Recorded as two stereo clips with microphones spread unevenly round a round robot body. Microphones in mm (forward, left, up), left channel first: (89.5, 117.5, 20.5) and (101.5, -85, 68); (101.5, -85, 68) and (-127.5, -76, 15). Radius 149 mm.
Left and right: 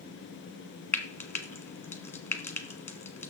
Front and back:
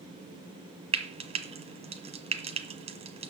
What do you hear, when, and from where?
0.9 s frying: 150° left, 1.1 m